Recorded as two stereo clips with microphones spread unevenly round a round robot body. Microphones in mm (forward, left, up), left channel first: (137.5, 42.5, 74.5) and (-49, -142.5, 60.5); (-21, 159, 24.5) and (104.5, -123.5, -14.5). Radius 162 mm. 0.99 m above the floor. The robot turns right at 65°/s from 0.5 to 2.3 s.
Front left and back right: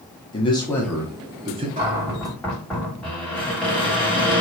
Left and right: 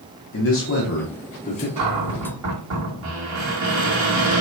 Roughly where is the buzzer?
I don't hear a buzzer.